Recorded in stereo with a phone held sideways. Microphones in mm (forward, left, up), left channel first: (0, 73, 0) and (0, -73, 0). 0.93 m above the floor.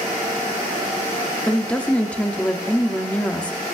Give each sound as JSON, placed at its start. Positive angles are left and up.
{"t": 1.5, "sound": "a woman speaking", "side_deg": 10, "distance_m": 0.8}